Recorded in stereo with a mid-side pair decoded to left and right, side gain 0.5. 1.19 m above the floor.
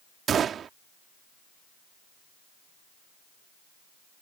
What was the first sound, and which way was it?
A gunshot, 50° right.